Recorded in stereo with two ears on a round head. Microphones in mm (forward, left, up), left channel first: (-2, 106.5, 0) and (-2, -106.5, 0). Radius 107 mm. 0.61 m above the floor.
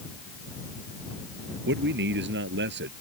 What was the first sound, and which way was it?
A man speaking, 45° right (ahead or behind).